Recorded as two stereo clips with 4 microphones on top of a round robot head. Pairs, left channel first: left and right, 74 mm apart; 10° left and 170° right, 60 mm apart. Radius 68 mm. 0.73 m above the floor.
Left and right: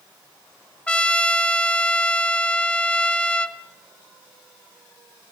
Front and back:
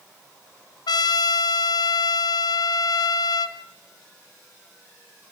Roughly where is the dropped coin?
No dropped coin in this recording.